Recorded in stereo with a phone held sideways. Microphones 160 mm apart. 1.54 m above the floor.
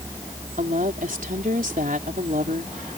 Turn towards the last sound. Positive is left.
turn(degrees=-55)  # may be behind; listen again after turning